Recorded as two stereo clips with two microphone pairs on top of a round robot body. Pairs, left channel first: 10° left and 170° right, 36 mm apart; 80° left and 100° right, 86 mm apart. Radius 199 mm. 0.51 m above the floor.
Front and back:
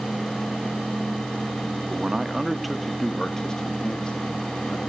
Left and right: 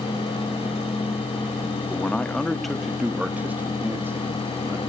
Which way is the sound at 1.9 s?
135° left.